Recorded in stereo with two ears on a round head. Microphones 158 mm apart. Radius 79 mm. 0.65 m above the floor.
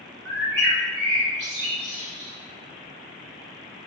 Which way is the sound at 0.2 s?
65° right (ahead or behind).